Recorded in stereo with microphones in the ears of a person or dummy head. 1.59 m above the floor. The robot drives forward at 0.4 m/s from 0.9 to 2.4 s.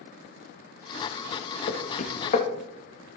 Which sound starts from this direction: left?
Knocking, at 1.7 s.